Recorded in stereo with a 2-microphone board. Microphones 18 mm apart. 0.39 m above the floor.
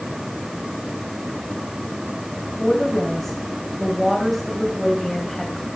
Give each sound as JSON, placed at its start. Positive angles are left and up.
{"t": 2.6, "sound": "a woman speaking", "side_deg": 10, "distance_m": 2.5}